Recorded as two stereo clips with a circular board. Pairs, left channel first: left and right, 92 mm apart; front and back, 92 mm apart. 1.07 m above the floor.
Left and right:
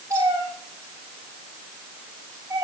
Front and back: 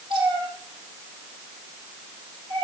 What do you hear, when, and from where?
0.1 s a cat meowing: 150° right, 4.5 m